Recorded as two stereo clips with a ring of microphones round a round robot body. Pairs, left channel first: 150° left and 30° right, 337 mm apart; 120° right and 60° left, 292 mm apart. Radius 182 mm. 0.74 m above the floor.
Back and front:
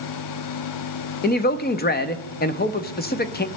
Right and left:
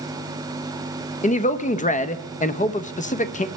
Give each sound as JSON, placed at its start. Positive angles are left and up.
{"t": 1.2, "sound": "a man speaking", "azimuth_deg": -170, "distance_m": 0.8}